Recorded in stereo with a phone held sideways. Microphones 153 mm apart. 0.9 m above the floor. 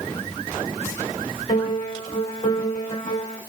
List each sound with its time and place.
1.5 s a piano: 40° left (ahead or behind), 2.5 m